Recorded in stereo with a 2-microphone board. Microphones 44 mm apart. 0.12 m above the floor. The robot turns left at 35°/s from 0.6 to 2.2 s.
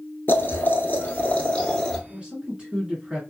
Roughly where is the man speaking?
Right.